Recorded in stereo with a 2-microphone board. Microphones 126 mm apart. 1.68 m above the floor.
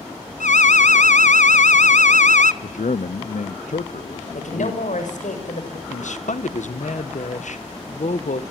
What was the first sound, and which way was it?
An alarm, 75° left (ahead or behind).